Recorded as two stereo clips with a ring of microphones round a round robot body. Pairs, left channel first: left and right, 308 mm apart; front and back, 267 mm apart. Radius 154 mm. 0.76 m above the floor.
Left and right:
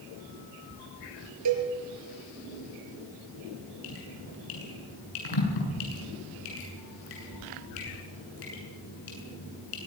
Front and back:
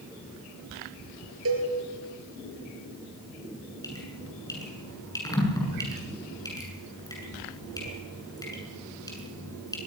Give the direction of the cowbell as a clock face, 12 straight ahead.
4 o'clock.